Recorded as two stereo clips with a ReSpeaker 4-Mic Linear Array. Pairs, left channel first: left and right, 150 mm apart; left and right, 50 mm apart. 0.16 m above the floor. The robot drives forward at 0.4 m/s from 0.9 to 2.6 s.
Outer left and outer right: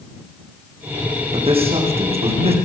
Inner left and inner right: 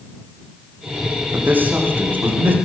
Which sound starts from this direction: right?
A man speaking, at 1.3 s.